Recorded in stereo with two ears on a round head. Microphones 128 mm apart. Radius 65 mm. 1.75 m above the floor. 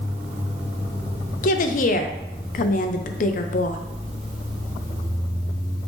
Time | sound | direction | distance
1.4 | a woman speaking | 60° left (ahead or behind) | 0.5 m